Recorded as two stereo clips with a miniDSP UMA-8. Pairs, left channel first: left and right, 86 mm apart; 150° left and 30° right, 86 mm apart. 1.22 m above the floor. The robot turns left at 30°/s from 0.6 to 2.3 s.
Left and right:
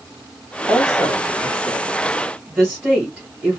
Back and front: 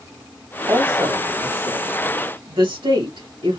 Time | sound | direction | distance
0.7 | a woman speaking | 25° left | 2 m